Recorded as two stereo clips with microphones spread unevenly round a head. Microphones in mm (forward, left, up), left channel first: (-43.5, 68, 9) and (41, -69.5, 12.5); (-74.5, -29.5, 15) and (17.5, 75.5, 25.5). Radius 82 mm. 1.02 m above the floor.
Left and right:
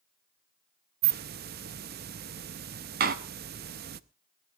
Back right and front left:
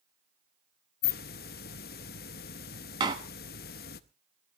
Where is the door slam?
20° right, 1.0 m.